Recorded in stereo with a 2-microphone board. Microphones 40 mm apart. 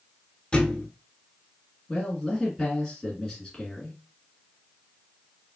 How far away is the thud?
About 0.9 m.